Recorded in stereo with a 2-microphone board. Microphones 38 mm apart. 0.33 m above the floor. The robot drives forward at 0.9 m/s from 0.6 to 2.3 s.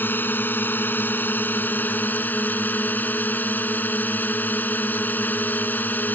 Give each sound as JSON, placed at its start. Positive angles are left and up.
{"t": 0.0, "sound": "a drone", "side_deg": 70}